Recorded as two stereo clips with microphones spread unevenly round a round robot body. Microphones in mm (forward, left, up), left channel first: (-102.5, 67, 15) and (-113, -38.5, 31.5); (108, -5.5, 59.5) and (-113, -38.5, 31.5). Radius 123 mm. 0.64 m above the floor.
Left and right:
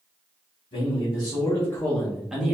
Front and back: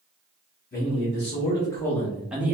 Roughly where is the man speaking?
Ahead left.